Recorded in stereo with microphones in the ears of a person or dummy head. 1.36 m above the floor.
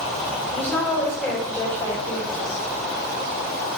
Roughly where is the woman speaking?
Centre.